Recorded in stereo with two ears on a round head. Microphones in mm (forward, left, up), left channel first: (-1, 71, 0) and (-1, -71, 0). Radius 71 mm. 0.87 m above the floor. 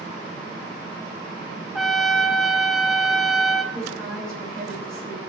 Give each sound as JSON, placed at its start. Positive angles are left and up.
{"t": 1.8, "sound": "a trumpet", "side_deg": 0, "distance_m": 0.8}
{"t": 3.7, "sound": "a woman speaking", "side_deg": 5, "distance_m": 5.5}